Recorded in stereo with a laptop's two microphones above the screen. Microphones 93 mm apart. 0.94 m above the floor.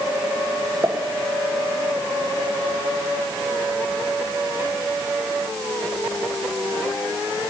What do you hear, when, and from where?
0.8 s a pop: 40° right (ahead or behind), 1.0 m